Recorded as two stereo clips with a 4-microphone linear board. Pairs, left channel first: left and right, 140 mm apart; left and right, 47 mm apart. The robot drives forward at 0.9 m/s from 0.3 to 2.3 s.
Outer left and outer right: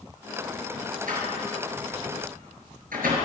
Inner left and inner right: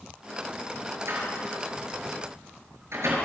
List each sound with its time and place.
1.1 s a door slam: 70° right (ahead or behind), 7 m; by 3.2 s 80° right, 6.5 m